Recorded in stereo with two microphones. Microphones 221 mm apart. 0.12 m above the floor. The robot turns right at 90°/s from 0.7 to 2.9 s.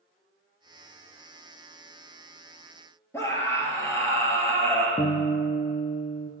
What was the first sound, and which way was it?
A scream, 10° left (ahead or behind).